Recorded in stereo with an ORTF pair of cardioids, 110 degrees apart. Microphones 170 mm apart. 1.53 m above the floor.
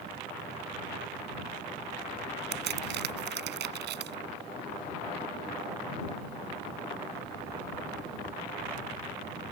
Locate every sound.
2.5 s a crack: 70° right